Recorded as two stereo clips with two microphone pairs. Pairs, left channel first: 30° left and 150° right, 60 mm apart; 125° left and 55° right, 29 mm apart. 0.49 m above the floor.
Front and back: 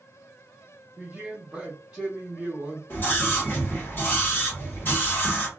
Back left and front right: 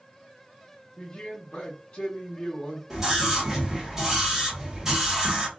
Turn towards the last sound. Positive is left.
turn(degrees=10)